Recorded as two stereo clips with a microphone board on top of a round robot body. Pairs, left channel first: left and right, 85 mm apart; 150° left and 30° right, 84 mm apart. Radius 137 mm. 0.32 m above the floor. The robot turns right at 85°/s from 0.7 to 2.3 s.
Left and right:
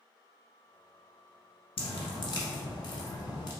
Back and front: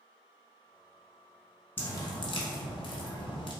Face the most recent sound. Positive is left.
turn(degrees=130)